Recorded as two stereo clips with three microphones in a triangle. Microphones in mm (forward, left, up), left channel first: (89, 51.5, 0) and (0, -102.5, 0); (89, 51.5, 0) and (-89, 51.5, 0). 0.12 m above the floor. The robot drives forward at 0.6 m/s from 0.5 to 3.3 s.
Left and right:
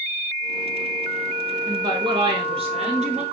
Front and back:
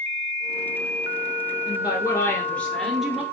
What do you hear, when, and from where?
1.7 s a woman speaking: 55° right, 1.8 m; by 3.2 s 100° right, 1.6 m